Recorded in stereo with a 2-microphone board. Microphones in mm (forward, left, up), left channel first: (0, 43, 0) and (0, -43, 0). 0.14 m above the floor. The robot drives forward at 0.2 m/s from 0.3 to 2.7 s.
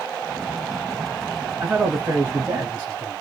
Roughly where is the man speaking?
Centre.